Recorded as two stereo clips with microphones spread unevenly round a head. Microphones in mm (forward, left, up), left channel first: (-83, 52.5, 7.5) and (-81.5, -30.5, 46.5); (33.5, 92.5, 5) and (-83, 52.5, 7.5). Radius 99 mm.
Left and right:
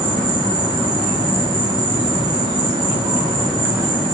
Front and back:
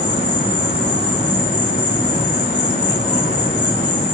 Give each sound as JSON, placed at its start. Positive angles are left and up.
{"t": 0.0, "sound": "an insect", "azimuth_deg": -30, "distance_m": 4.0}